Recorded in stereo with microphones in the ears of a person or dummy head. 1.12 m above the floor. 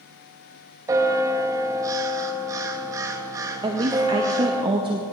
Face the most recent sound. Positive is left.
turn(degrees=-30)  # may be behind; listen again after turning